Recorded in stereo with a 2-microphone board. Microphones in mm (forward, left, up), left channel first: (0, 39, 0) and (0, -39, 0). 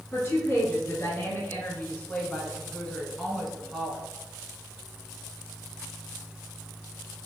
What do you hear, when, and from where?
0.1 s a woman speaking: 35° left (ahead or behind), 2.0 m; by 4.0 s 5° right (ahead or behind), 1.4 m